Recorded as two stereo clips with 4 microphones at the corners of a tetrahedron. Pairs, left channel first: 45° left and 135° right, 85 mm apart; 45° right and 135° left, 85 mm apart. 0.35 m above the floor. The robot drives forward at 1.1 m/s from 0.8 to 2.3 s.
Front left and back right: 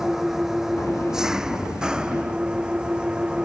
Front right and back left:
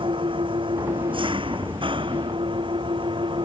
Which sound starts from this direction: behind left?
An engine running, at 0.0 s.